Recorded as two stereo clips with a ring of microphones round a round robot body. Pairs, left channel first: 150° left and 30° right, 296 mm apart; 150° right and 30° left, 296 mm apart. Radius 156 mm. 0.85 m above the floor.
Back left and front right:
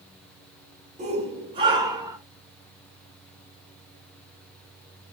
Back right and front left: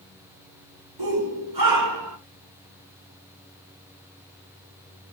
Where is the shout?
40° left, 3.5 m; by 2.2 s 50° left, 3.5 m.